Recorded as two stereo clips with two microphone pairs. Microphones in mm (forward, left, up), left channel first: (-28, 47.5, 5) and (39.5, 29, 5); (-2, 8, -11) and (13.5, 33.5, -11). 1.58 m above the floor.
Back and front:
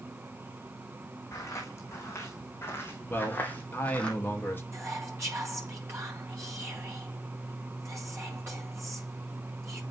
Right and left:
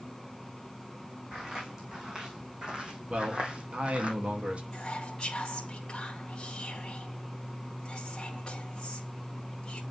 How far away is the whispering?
About 1.1 m.